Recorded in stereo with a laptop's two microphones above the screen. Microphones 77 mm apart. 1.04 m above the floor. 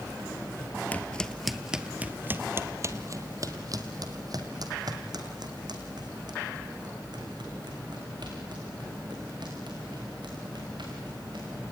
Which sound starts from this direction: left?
Footsteps, at 0.9 s.